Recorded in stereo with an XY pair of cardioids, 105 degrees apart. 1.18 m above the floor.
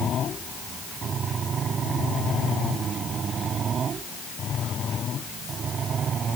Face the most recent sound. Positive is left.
No sound to turn to.